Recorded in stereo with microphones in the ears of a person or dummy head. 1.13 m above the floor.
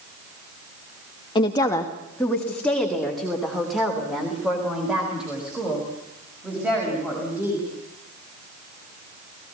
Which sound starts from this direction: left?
A woman speaking, at 1.4 s.